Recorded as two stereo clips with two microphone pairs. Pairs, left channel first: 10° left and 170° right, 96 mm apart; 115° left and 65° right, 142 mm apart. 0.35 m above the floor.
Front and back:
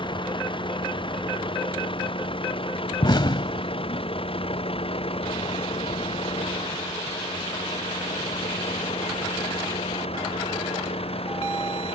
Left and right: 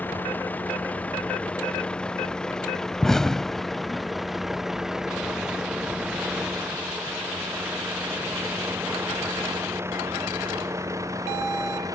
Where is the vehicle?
40° left; by 11.9 s straight ahead.